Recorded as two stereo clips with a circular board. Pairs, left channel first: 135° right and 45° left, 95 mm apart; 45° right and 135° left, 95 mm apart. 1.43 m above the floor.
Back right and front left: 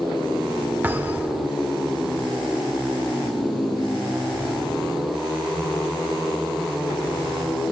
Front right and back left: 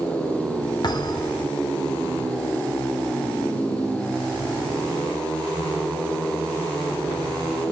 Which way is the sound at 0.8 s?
20° right.